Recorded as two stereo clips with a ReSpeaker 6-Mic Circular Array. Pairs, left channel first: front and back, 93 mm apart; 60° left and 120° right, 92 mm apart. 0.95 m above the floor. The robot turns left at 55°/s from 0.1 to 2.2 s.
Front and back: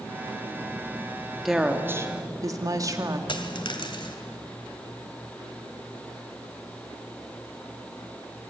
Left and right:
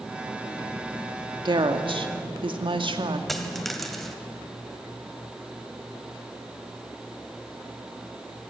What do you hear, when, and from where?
1.4 s a woman speaking: 90° right, 2.5 m; by 3.2 s 130° right, 2.5 m
3.3 s a dropped coin: 30° right, 2 m